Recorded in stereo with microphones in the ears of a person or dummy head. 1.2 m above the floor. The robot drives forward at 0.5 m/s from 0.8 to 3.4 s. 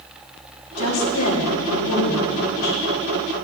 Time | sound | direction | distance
0.8 | a woman speaking | 85° left | 2.5 m